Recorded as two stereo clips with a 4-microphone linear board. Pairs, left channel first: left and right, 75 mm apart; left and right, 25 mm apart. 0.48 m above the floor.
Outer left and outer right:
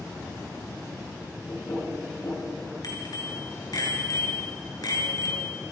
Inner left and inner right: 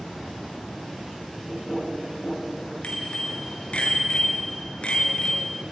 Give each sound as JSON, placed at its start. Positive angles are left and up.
{"t": 1.5, "sound": "knocking", "side_deg": 45, "distance_m": 9.5}
{"t": 2.8, "sound": "a bicycle bell", "side_deg": 60, "distance_m": 5.5}